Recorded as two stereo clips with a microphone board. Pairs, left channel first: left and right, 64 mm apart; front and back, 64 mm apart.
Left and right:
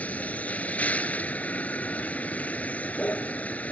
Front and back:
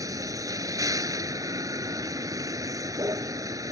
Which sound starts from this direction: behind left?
A vehicle, at 0.0 s.